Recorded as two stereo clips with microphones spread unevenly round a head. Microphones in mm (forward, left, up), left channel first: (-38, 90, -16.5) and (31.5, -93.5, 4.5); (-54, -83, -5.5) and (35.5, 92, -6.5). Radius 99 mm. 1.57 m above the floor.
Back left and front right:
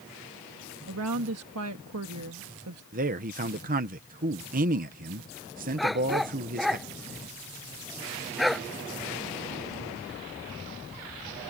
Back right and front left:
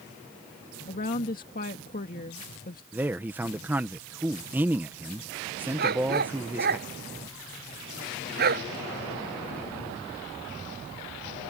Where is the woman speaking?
65° right.